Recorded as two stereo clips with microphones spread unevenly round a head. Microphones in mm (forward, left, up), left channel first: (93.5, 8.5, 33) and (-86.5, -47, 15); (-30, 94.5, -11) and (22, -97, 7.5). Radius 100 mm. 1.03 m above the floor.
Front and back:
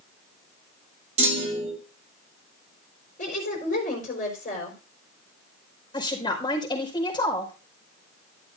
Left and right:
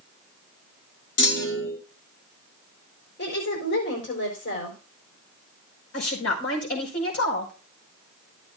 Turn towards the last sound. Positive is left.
turn(degrees=85)